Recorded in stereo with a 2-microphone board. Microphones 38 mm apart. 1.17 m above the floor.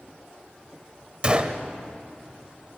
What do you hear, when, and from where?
1.2 s a gunshot: 30° right (ahead or behind), 1.1 m